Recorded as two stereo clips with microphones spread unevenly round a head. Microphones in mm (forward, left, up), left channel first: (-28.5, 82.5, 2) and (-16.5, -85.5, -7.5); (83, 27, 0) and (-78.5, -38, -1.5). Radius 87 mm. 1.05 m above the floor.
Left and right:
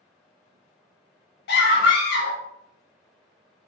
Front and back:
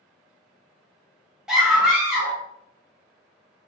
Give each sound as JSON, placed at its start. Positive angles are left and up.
{"t": 1.5, "sound": "a scream", "azimuth_deg": 115, "distance_m": 1.1}